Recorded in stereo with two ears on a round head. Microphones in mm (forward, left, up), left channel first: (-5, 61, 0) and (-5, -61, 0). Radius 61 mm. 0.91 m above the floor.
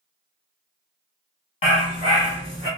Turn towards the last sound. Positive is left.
turn(degrees=30)  # may be behind; listen again after turning